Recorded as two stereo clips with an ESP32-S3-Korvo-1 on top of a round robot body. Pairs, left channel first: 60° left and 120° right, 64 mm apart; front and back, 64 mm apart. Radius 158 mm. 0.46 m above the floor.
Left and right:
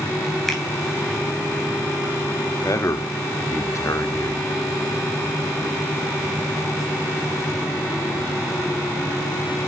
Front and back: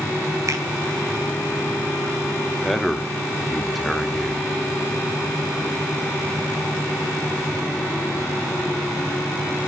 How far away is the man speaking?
About 1.2 m.